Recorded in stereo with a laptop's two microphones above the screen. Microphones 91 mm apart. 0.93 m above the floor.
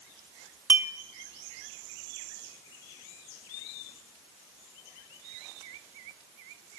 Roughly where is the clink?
Centre.